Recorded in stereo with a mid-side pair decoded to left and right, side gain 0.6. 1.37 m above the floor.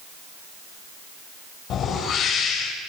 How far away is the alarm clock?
I don't hear an alarm clock.